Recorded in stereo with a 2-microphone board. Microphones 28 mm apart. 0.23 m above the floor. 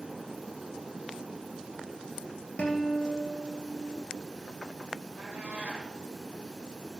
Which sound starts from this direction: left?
A guitar, at 2.6 s.